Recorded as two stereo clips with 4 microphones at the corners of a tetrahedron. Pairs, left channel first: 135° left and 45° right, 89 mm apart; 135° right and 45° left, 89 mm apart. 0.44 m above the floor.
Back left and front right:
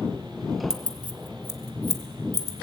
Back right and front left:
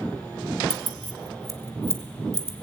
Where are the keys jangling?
35° left, 1.0 m; by 2.6 s 10° right, 1.7 m.